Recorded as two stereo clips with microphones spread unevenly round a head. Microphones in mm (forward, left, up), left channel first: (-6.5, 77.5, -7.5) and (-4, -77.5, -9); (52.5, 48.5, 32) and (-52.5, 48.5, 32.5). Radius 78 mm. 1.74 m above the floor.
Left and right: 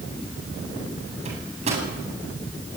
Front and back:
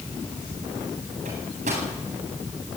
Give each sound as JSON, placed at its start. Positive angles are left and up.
{"t": 1.2, "sound": "a microwave", "azimuth_deg": -140, "distance_m": 9.0}